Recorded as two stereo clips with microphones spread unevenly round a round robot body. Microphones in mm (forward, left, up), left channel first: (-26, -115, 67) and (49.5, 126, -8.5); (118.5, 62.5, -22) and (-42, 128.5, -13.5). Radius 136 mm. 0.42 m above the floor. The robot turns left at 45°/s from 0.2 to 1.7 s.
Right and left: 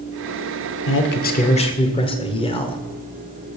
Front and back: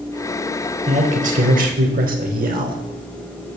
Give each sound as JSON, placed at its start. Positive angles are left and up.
{"t": 0.9, "sound": "a man speaking", "azimuth_deg": -150, "distance_m": 1.4}